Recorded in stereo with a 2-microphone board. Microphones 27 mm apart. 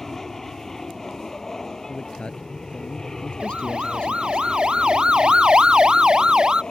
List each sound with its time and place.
0.0 s an aircraft: 15° left (ahead or behind); by 6.7 s 30° left (ahead or behind)
1.9 s a man speaking: 40° left (ahead or behind)
3.4 s a siren: 35° right (ahead or behind); by 6.6 s 25° right (ahead or behind)